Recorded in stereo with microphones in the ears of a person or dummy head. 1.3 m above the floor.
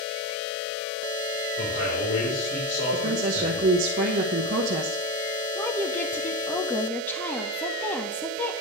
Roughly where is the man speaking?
Left.